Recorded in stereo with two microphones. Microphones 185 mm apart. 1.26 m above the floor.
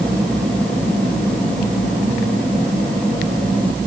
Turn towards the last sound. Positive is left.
No sound to turn to.